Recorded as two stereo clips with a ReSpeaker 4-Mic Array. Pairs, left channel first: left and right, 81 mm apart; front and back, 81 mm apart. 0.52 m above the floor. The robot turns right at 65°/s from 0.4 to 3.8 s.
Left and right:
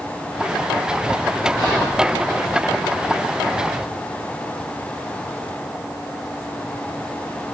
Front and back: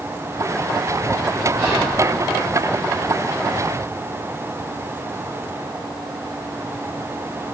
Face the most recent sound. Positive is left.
turn(degrees=-150)